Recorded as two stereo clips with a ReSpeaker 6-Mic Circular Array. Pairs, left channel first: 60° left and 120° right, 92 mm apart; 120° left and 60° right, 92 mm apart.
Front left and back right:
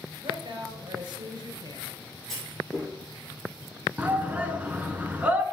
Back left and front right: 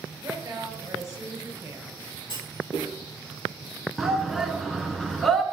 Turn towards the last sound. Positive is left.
turn(degrees=-150)